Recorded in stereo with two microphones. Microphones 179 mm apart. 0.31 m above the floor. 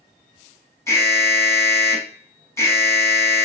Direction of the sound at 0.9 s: 15° left (ahead or behind).